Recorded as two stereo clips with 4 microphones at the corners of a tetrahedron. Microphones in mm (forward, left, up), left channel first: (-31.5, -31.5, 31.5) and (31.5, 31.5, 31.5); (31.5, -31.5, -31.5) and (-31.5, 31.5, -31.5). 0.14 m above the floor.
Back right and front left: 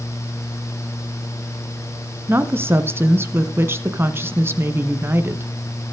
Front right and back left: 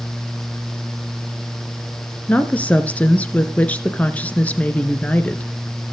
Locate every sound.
2.3 s a woman speaking: 10° left, 1.3 m